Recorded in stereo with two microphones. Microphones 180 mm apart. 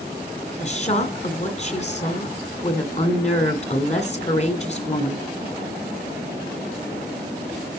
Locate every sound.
0.6 s a woman speaking: 40° left (ahead or behind), 2 m